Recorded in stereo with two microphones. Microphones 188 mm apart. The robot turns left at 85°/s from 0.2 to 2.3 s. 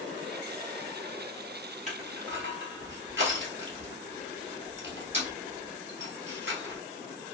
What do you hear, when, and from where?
1.9 s crushing: 40° right (ahead or behind), 1.3 m; by 6.8 s 75° right (ahead or behind), 1.3 m